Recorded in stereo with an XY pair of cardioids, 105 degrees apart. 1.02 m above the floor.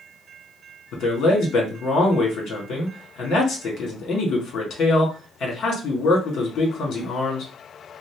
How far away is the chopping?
I don't hear chopping.